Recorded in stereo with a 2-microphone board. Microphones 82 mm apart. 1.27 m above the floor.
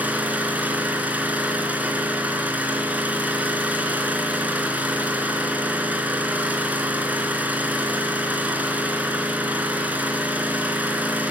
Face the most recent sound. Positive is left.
turn(degrees=-20)  # may be behind; listen again after turning